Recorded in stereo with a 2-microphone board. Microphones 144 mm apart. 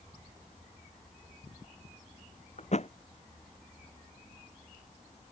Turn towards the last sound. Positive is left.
turn(degrees=50)  # may be behind; listen again after turning